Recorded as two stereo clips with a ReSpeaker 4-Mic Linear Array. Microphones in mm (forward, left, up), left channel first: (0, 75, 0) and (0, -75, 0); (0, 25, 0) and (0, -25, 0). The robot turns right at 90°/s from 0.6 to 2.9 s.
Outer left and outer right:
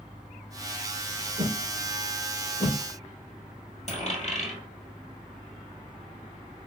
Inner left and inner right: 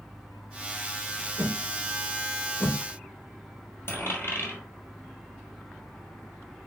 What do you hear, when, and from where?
1.4 s a whoosh: 60° right (ahead or behind), 1.5 m; by 2.8 s 65° left (ahead or behind), 1.5 m
3.9 s a dropped coin: 50° left (ahead or behind), 2 m